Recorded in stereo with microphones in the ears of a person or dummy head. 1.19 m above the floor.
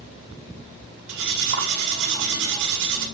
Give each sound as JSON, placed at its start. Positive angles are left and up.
{"t": 1.1, "sound": "cutlery clinking", "side_deg": -70, "distance_m": 2.0}